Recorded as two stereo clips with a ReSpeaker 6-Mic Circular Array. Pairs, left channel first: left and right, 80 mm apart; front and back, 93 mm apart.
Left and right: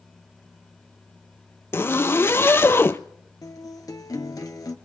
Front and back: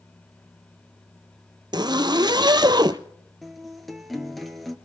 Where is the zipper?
145° left, 0.6 m.